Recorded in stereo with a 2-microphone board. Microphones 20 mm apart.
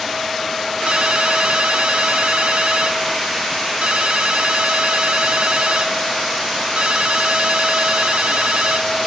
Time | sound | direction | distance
0.9 | a ringtone | 70° right (ahead or behind) | ?